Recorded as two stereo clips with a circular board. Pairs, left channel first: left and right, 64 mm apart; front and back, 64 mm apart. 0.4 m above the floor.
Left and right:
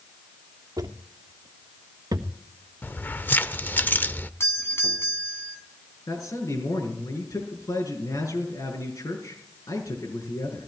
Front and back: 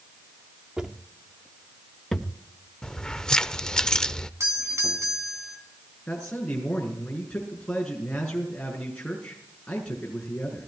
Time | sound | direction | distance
0.8 | footsteps | 105° right | 2 m
2.8 | keys jangling | 70° left | 0.6 m
4.4 | a doorbell | 140° left | 4 m
6.1 | a man speaking | 75° left | 5.5 m